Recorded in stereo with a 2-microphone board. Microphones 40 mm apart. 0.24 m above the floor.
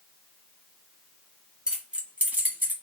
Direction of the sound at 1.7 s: 20° right (ahead or behind).